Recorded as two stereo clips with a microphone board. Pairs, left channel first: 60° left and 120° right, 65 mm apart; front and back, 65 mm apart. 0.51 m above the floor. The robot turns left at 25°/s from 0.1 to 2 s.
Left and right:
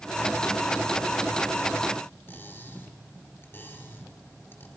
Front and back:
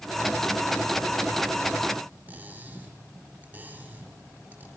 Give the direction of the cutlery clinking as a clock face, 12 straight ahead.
8 o'clock.